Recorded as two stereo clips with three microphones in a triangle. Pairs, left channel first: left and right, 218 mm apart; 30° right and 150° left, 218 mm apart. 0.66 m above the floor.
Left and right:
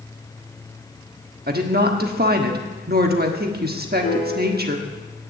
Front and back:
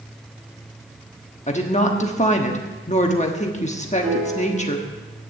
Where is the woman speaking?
75° right, 1.2 m.